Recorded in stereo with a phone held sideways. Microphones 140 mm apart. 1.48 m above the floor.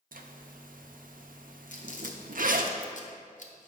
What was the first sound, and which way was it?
A zipper, 80° right.